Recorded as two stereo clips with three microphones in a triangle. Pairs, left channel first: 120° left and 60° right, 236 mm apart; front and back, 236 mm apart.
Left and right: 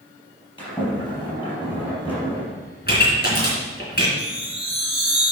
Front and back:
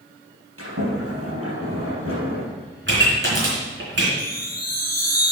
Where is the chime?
50° left, 3.5 m.